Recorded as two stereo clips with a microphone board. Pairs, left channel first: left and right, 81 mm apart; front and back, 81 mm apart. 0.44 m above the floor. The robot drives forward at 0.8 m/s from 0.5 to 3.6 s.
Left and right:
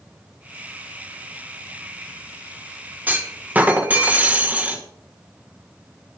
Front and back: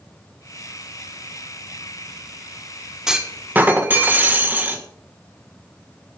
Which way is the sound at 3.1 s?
110° right.